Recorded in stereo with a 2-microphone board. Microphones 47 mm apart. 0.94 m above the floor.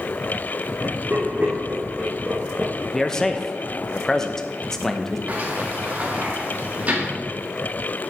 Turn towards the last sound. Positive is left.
turn(degrees=-35)  # may be behind; listen again after turning